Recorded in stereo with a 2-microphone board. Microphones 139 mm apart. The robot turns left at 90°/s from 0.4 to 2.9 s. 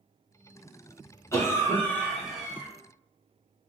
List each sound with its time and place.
1.3 s a cough: 20° left (ahead or behind), 1.0 m; by 2.7 s 15° right (ahead or behind), 1.0 m